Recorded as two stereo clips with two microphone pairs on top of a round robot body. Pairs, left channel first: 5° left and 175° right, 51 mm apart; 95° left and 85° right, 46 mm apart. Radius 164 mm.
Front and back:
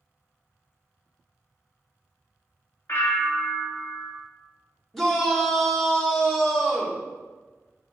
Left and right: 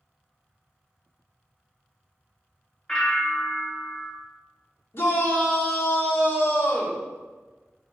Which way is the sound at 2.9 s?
20° left.